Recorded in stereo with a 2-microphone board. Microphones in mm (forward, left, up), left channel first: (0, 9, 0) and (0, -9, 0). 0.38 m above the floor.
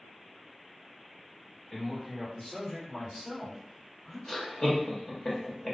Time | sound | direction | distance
1.7 | a man speaking | 15° left (ahead or behind) | 1.2 m
4.3 | laughter | 40° left (ahead or behind) | 0.9 m